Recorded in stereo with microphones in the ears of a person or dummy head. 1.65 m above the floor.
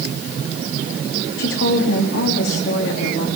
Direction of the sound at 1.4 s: 70° left (ahead or behind).